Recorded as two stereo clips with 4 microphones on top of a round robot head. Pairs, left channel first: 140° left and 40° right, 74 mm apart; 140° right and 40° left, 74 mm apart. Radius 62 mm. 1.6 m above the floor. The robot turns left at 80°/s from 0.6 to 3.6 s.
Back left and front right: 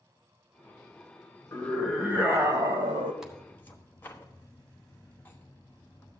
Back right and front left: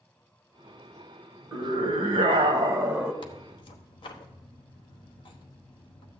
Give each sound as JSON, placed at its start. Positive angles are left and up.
{"t": 1.5, "sound": "a scream", "azimuth_deg": 85, "distance_m": 1.4}
{"t": 3.2, "sound": "tearing paper", "azimuth_deg": -125, "distance_m": 1.0}